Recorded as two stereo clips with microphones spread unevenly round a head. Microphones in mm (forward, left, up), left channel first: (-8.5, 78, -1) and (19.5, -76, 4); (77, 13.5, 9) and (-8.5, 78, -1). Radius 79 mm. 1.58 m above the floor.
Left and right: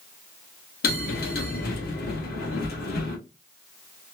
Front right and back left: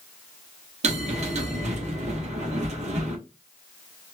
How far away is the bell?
About 1.1 m.